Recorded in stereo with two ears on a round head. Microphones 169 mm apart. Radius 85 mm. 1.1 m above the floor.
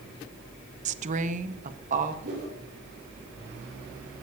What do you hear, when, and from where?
0.8 s a woman speaking: 35° right (ahead or behind), 0.6 m; by 2.1 s 40° right (ahead or behind), 1.4 m
2.2 s a whoosh: 50° right (ahead or behind), 7.5 m